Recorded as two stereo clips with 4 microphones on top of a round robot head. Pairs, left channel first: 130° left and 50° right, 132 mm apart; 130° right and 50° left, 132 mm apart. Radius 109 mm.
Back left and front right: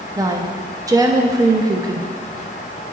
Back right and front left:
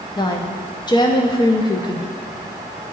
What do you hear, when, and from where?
0.2 s a woman speaking: 95° right, 0.6 m